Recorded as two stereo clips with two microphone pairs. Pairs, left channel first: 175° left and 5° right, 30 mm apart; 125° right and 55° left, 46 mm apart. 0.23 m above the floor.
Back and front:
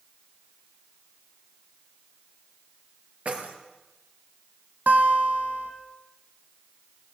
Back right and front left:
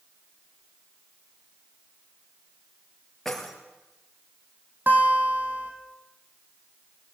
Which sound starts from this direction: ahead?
A guitar, at 4.9 s.